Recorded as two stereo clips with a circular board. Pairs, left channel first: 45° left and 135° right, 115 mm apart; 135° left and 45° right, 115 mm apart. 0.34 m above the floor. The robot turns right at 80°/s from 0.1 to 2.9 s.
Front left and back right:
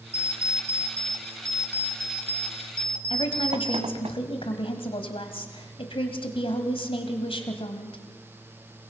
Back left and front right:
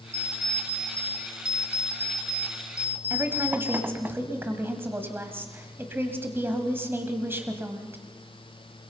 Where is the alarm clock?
20° left, 1.4 m; by 4.1 s 115° right, 1.4 m.